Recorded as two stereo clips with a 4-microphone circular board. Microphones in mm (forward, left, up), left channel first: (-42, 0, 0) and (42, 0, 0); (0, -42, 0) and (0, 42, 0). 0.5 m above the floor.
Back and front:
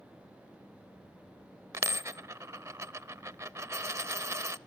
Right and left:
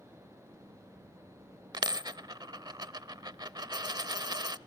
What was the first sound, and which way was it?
A dropped coin, 55° left.